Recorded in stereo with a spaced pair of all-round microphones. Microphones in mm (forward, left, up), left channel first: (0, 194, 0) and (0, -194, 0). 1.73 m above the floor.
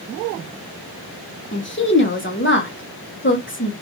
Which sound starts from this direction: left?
A woman speaking, at 1.5 s.